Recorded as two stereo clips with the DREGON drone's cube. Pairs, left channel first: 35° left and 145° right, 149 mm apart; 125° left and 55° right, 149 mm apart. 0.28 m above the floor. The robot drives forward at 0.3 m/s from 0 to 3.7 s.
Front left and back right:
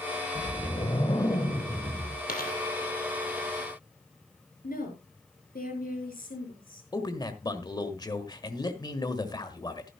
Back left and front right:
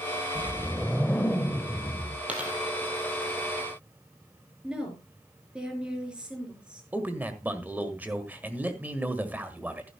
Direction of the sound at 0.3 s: 30° left.